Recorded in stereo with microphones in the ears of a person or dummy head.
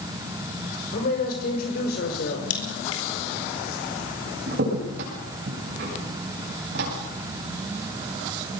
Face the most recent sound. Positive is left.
turn(degrees=-65)  # may be behind; listen again after turning